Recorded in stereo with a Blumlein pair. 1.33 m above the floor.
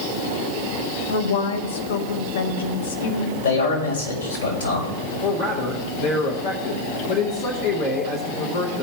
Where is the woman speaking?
55° left, 1.2 m.